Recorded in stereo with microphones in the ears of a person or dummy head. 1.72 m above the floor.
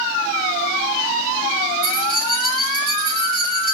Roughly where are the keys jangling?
Right.